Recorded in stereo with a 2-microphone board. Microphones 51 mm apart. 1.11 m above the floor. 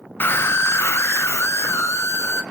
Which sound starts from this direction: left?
A scream, at 0.2 s.